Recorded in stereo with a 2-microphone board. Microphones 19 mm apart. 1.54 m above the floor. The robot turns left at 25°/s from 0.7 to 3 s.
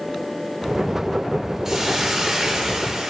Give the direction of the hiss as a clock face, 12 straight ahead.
1 o'clock.